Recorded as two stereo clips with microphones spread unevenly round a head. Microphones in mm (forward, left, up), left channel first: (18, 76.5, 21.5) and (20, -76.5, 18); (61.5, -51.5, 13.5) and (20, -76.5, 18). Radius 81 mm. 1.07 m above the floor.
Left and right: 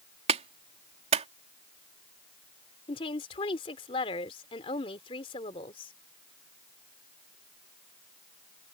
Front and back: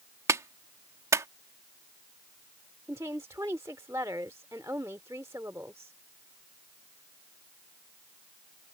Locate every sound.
0.3 s a clap: 140° right
2.9 s a woman speaking: 150° left